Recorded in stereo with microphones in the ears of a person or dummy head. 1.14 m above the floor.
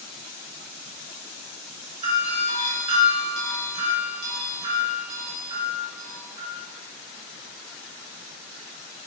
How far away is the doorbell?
About 2 m.